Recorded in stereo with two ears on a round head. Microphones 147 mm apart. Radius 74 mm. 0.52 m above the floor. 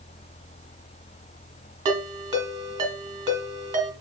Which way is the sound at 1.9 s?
25° right (ahead or behind).